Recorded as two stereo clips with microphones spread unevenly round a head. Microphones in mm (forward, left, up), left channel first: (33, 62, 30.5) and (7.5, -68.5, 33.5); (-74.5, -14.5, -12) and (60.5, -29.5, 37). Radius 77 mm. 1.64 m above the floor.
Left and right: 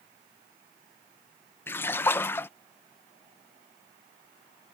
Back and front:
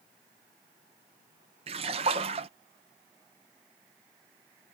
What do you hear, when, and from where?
1.7 s a splash: 5° left